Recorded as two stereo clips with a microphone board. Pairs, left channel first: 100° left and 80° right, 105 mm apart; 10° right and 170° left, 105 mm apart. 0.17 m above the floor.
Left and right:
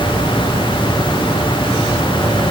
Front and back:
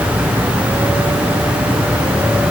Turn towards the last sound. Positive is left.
No sound to turn to.